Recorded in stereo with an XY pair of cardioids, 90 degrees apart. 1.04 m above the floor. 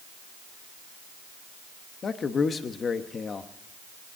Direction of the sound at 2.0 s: 50° left.